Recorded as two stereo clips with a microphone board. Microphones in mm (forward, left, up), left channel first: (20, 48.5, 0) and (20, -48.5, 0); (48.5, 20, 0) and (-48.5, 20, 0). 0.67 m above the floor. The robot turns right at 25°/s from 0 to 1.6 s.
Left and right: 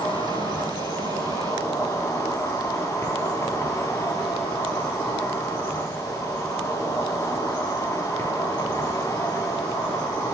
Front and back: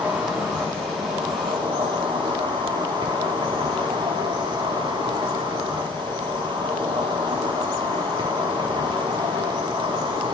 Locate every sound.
0.0 s an insect: 105° left, 0.8 m; by 10.3 s 145° left, 0.8 m